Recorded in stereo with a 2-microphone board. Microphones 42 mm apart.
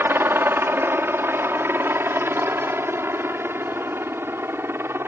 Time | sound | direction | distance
0.0 | a helicopter | 60° right (ahead or behind) | ?